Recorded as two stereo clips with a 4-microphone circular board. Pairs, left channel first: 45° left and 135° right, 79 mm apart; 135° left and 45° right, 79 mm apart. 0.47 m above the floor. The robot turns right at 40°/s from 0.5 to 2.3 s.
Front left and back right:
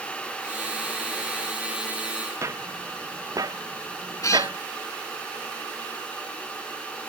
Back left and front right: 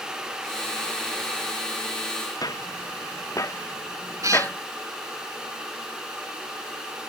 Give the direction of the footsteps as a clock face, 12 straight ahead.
6 o'clock.